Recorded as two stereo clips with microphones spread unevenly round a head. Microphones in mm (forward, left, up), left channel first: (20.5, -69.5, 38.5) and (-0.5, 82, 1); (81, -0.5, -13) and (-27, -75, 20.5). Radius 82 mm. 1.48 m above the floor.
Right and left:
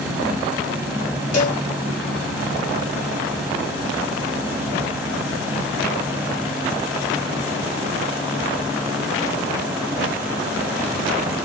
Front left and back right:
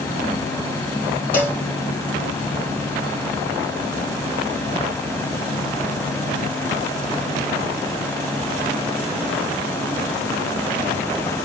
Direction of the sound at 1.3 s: 45° right.